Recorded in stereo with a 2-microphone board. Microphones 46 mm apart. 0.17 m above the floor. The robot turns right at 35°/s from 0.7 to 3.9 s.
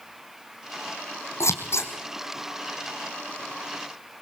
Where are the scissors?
85° left, 2 m; by 1.9 s 70° left (ahead or behind), 2 m.